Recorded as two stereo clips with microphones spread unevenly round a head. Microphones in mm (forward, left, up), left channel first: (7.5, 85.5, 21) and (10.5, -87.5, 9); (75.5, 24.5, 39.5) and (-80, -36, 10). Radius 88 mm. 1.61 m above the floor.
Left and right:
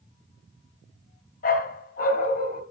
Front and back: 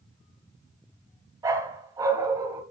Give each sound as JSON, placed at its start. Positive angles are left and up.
{"t": 1.4, "sound": "a dog barking", "azimuth_deg": 120, "distance_m": 2.5}